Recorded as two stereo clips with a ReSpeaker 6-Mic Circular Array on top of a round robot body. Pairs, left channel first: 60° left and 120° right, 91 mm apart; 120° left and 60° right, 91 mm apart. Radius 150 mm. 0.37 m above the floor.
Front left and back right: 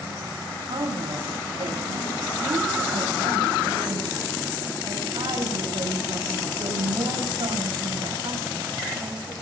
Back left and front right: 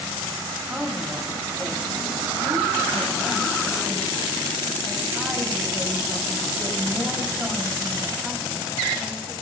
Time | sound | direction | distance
0.7 | a woman speaking | 145° right | 5 m